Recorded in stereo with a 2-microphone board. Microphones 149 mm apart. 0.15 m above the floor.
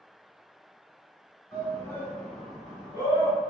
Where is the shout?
25° left (ahead or behind), 1.4 m; by 3.4 s 25° right (ahead or behind), 1.5 m.